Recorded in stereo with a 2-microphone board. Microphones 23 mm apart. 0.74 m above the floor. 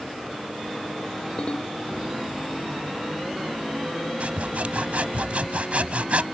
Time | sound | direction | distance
1.4 | a ringtone | 50° left (ahead or behind) | ?
4.2 | sawing | 65° right (ahead or behind) | ?